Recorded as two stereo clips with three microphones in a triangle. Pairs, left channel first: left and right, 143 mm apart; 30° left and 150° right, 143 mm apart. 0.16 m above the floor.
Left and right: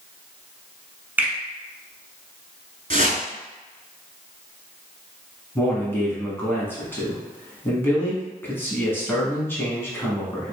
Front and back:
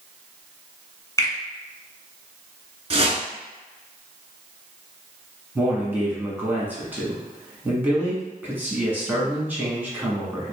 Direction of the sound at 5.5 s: 150° left.